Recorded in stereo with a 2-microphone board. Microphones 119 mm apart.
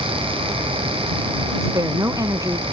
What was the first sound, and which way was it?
A woman speaking, 30° right (ahead or behind).